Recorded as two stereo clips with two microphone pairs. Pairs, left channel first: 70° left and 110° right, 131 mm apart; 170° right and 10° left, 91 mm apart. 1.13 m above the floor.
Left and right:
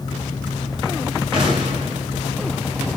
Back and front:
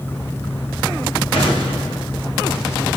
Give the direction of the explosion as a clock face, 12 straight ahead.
5 o'clock.